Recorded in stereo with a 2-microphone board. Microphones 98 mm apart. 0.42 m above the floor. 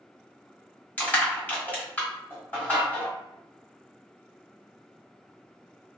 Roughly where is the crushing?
Centre.